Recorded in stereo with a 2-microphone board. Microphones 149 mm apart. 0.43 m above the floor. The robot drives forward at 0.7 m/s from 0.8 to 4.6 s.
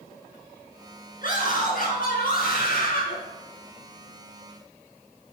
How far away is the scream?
About 4.5 m.